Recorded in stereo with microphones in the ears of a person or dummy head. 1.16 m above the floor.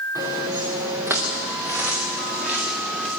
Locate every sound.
0.1 s footsteps: 20° right (ahead or behind), 5 m; by 3.1 s 5° right (ahead or behind), 7 m